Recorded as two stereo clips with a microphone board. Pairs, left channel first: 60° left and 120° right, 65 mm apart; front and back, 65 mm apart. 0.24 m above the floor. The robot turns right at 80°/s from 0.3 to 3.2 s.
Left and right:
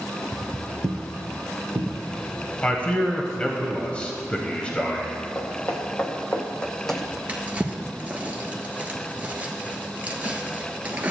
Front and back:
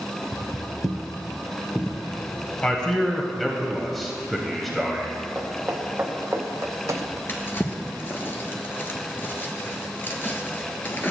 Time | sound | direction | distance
0.3 | footsteps | 170° right | 0.8 m
2.6 | a man speaking | 40° left | 0.9 m
5.3 | footsteps | 110° left | 2 m
7.3 | a drawer | 55° right | 1.2 m